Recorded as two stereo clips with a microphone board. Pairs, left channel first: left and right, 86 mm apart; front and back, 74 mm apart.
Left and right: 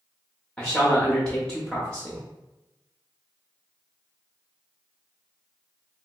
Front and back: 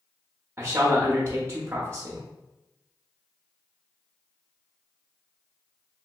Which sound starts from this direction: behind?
A man speaking, at 0.6 s.